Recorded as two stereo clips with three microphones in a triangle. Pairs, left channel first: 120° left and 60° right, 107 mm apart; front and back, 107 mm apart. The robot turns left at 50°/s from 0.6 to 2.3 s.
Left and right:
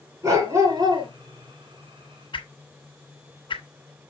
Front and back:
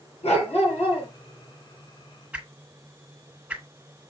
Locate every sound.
0.2 s a dog barking: straight ahead, 6 m; by 1.1 s 25° right, 6 m
2.3 s a whoosh: 105° left, 1.4 m